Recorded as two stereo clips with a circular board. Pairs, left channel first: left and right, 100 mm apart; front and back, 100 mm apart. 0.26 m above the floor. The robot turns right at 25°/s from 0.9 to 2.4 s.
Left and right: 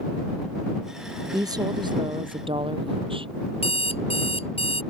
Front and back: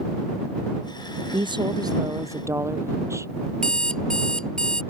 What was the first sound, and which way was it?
A woman speaking, 145° right.